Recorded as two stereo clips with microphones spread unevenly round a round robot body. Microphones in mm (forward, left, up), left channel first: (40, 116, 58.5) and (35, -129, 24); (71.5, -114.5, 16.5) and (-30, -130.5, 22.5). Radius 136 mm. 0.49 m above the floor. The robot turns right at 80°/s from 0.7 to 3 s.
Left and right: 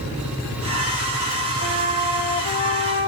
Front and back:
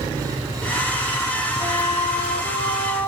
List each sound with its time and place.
1.6 s a flute: 45° right, 0.6 m; by 3.1 s 65° left, 0.6 m